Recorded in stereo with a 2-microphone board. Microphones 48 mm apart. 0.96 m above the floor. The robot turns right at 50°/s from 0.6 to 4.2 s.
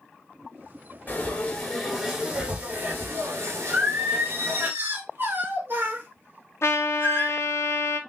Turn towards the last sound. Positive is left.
turn(degrees=65)  # may be behind; listen again after turning